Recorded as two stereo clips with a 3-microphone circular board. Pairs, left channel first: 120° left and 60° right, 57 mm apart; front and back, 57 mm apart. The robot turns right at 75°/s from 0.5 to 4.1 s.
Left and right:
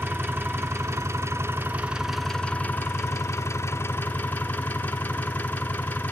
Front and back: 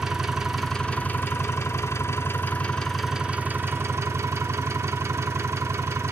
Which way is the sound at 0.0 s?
100° right.